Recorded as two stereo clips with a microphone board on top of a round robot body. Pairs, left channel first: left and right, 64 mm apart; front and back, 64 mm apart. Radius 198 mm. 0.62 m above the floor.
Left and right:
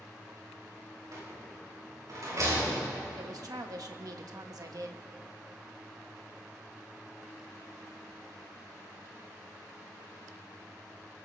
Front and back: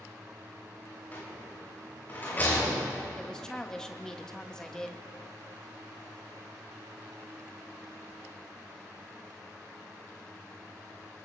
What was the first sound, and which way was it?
A rattle, 60° right.